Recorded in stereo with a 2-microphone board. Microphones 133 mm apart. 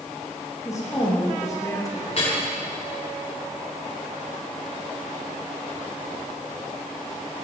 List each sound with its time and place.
0.7 s a woman speaking: 25° left (ahead or behind), 6 m
2.1 s dripping: 50° left (ahead or behind), 6.5 m